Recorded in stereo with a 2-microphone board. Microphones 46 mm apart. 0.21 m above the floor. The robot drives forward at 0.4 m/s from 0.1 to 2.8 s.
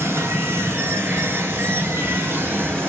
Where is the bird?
No bird in this recording.